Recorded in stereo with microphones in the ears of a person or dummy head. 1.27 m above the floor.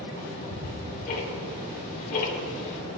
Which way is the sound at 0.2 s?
45° left (ahead or behind).